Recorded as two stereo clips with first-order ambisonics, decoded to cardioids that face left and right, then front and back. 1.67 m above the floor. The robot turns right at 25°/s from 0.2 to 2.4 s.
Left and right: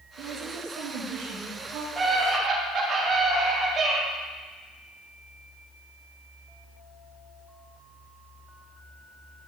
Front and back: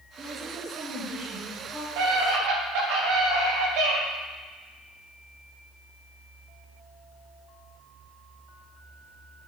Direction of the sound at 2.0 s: 170° right.